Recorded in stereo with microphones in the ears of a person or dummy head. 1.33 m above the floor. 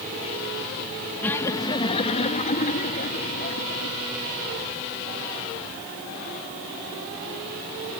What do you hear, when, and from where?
1.2 s laughter: 10° left (ahead or behind); by 4.0 s 55° left (ahead or behind)